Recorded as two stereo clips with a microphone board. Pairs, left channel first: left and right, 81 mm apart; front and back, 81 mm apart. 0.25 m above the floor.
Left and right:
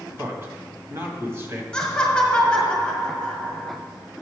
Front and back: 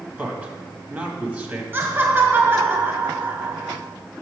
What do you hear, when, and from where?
0.2 s a man speaking: 125° right, 1.4 m
1.7 s laughter: 155° left, 1.3 m